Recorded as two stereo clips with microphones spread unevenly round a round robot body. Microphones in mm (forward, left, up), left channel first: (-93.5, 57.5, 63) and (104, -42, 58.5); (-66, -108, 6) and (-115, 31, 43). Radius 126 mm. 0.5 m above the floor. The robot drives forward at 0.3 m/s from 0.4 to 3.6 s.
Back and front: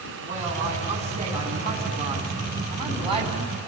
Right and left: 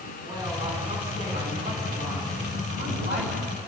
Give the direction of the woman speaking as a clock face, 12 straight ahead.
11 o'clock.